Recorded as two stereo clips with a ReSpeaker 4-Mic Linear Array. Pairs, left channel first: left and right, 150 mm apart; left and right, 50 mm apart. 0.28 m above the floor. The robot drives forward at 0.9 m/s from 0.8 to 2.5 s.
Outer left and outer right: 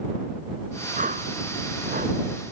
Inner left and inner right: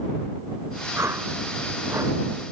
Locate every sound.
1.0 s a whoosh: 65° right (ahead or behind); by 2.2 s 70° right (ahead or behind)